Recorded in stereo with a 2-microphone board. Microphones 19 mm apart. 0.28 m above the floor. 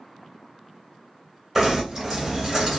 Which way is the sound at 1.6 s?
15° right (ahead or behind).